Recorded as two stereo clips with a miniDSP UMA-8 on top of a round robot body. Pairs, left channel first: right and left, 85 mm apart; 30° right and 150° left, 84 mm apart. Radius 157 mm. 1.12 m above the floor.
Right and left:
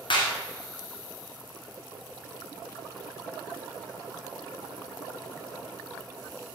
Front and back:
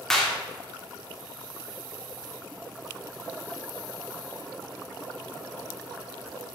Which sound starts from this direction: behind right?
A clap, at 0.1 s.